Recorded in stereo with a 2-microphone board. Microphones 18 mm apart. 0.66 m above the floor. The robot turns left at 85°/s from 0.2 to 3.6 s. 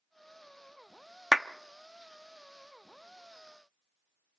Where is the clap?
5° left (ahead or behind), 0.8 m; by 1.5 s centre (ahead or behind), 0.8 m.